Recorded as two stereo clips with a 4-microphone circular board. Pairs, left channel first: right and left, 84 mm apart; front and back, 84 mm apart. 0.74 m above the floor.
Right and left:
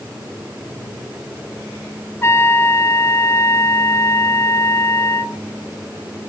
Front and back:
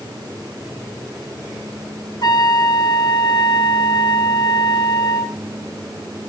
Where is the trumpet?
35° right, 1.7 m.